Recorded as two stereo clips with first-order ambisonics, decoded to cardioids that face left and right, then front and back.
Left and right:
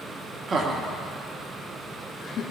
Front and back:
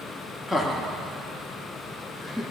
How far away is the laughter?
About 1.0 m.